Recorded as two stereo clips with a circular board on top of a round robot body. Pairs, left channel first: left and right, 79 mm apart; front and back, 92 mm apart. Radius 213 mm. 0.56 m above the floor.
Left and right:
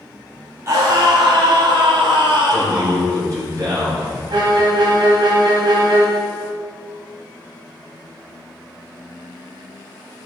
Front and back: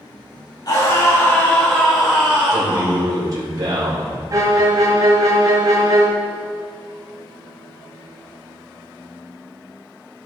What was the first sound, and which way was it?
A scream, 40° right.